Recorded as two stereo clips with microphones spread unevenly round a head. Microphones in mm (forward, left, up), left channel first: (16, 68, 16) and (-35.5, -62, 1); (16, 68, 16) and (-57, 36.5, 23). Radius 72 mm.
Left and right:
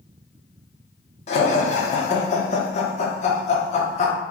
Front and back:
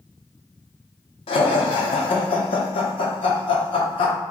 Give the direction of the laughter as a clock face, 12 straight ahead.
11 o'clock.